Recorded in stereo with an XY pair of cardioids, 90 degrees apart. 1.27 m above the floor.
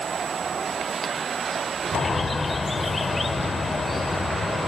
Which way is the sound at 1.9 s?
20° left.